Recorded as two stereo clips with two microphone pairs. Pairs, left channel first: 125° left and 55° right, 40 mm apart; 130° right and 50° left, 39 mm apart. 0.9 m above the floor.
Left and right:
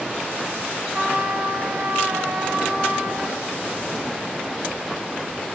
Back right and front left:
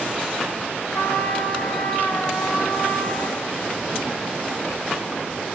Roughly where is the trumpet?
Behind right.